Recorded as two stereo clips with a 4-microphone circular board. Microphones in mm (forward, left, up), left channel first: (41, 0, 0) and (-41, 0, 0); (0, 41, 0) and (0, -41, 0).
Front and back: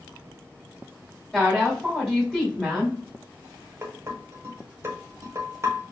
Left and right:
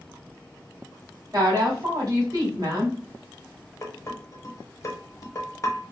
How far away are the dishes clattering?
About 1.0 m.